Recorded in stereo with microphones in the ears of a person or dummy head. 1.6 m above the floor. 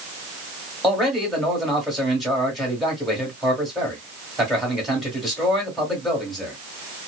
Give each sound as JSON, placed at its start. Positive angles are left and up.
{"t": 0.8, "sound": "a man speaking", "side_deg": -5, "distance_m": 1.4}